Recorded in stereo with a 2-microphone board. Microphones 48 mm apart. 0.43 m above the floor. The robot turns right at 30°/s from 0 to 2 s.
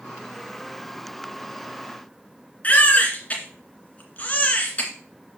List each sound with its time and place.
2.6 s a baby crying: 30° left (ahead or behind), 2 m